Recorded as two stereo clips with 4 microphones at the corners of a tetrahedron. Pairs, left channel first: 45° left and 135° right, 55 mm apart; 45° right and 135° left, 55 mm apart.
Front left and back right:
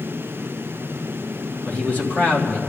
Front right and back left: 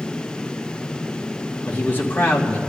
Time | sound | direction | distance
1.6 | a man speaking | 5° right | 2 m